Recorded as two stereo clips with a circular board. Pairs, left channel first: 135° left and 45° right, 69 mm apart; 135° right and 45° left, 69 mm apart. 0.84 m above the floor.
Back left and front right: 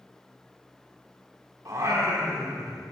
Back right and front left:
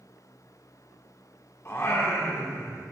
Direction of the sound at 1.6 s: 85° right.